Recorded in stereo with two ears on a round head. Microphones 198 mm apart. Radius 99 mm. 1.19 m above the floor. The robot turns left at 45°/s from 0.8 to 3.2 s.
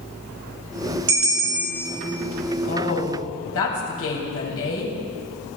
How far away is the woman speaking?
About 8 m.